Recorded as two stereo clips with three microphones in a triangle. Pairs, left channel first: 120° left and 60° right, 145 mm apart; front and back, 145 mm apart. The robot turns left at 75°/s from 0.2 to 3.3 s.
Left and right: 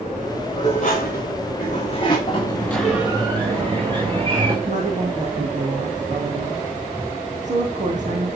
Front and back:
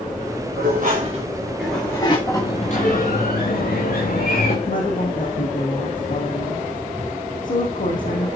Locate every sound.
0.6 s dishes clattering: 175° left, 7 m; by 2.2 s 55° left, 7 m
2.3 s a sliding door: 70° left, 8 m; by 4.5 s 5° right, 8 m
4.7 s a woman speaking: 25° right, 6 m